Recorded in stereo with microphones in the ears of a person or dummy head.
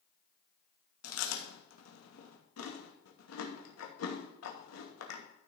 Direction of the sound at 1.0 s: 80° left.